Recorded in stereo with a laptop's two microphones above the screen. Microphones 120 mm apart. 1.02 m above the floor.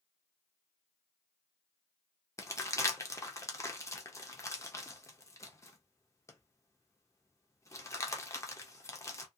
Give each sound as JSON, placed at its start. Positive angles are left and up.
{"t": 2.4, "sound": "crumpling", "side_deg": 25, "distance_m": 0.6}